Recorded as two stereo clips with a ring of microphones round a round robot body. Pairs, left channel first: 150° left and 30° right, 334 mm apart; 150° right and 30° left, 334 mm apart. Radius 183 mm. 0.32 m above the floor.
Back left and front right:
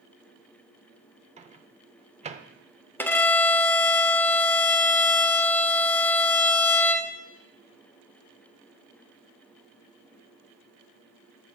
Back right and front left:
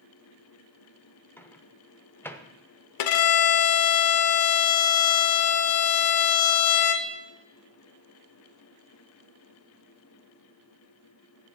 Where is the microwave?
75° right, 0.7 m.